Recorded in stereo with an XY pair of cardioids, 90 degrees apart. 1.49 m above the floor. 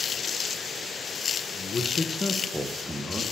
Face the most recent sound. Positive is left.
turn(degrees=-15)